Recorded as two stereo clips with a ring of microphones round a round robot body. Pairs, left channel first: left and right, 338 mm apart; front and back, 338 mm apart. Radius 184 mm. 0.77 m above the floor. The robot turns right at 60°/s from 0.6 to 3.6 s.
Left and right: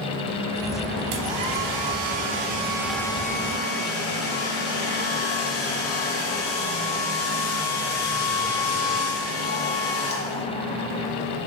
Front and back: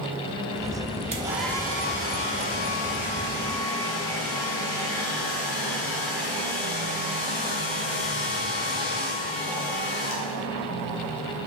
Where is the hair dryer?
110° right, 1.7 m; by 10.4 s 40° left, 1.7 m.